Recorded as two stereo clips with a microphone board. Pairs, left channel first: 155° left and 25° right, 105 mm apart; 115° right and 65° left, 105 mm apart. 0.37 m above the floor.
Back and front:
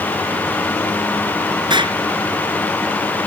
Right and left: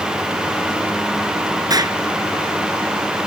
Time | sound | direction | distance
1.7 | an explosion | 15° left | ?